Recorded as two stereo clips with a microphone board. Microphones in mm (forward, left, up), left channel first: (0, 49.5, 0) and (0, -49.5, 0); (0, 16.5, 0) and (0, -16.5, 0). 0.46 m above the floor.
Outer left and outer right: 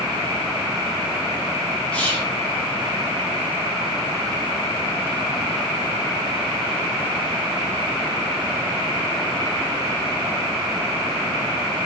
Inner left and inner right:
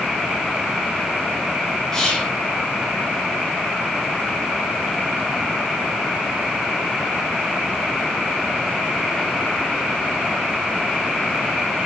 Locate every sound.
1.9 s whispering: 15° left (ahead or behind), 0.7 m